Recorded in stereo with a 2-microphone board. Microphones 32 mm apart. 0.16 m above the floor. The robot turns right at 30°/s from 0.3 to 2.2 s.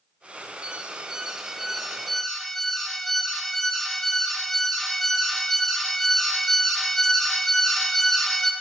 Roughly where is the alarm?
Ahead right.